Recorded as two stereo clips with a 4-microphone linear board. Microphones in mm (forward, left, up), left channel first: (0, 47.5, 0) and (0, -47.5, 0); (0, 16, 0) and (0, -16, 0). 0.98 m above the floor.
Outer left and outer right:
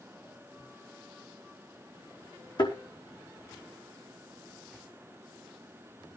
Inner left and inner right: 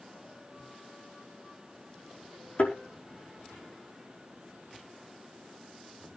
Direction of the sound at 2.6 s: 60° left (ahead or behind).